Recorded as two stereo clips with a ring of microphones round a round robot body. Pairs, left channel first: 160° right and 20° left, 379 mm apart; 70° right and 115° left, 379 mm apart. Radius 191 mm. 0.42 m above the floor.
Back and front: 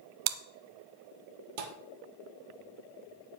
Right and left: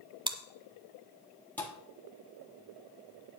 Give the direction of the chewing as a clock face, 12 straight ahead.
11 o'clock.